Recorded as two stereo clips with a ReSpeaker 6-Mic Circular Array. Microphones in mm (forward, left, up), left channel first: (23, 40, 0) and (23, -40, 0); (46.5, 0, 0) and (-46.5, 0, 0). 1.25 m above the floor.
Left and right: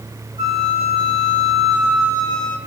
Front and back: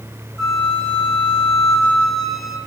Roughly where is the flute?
Right.